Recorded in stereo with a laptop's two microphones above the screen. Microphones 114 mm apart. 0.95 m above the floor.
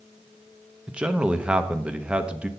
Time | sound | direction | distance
0.9 | a man speaking | 10° right (ahead or behind) | 0.7 m